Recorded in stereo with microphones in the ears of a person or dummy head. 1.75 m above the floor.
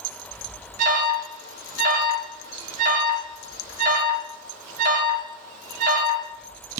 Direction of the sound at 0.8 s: 50° right (ahead or behind).